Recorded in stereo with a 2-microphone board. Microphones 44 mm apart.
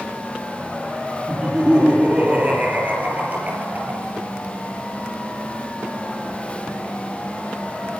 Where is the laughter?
25° right (ahead or behind), 6.5 m; by 4.2 s 40° right (ahead or behind), 6 m.